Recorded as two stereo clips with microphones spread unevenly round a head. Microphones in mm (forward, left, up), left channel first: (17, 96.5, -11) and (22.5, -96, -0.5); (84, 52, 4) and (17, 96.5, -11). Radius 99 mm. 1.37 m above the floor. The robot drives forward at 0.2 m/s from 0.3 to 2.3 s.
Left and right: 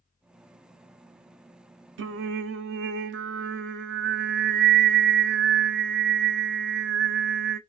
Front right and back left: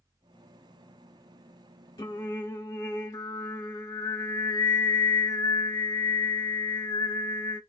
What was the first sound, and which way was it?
Singing, 95° right.